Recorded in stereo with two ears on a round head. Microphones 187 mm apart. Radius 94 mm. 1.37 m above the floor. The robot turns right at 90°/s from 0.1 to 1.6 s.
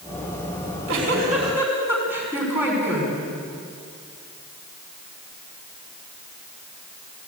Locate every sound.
0.6 s a giggle: 100° right, 7 m; by 3.1 s 10° right, 7 m